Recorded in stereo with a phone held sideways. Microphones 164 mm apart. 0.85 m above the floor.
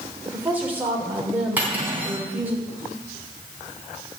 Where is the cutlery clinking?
10° right (ahead or behind), 4 m.